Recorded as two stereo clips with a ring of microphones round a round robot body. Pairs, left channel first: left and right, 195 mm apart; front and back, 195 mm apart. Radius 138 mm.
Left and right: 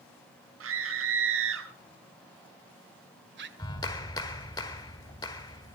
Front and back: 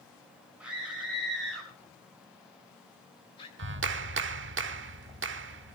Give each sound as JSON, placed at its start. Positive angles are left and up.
{"t": 0.6, "sound": "a scream", "azimuth_deg": -95, "distance_m": 5.5}
{"t": 3.6, "sound": "a clap", "azimuth_deg": 165, "distance_m": 1.3}